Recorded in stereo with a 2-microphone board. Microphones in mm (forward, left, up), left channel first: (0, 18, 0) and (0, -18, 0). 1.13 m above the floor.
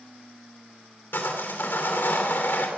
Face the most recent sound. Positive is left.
turn(degrees=75)  # may be behind; listen again after turning